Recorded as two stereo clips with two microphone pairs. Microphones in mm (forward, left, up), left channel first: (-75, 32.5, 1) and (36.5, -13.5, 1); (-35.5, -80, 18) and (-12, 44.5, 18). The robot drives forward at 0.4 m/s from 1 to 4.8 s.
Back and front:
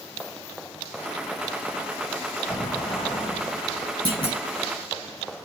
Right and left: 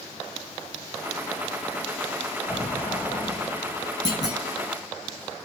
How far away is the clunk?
About 4 m.